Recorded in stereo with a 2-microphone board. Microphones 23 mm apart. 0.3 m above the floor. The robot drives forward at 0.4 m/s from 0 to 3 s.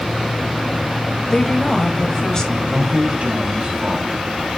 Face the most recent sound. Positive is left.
turn(degrees=-55)  # may be behind; listen again after turning